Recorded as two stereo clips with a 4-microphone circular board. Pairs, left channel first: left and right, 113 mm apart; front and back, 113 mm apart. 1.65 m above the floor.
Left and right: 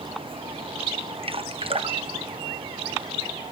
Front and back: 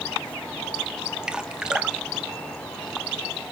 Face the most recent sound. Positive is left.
turn(degrees=-100)